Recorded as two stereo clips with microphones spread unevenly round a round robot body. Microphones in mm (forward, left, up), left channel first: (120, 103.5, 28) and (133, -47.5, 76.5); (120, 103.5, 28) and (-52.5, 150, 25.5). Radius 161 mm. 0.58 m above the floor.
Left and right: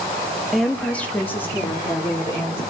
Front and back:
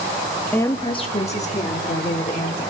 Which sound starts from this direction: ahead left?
A woman speaking, at 0.5 s.